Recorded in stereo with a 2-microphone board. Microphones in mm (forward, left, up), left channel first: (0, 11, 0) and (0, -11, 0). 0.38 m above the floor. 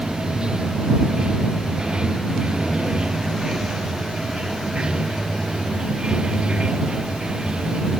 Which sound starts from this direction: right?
Running water, at 0.0 s.